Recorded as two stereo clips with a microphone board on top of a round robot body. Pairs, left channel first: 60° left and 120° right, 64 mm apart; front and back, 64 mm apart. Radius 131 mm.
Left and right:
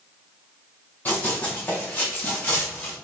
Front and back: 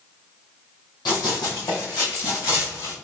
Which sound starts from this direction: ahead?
Running footsteps, at 1.1 s.